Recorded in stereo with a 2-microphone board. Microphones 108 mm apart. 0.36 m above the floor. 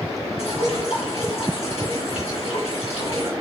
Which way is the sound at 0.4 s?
70° left (ahead or behind).